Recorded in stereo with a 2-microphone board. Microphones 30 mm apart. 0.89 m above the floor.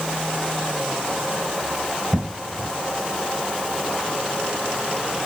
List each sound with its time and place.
2.1 s an explosion: 15° left (ahead or behind), 2.5 m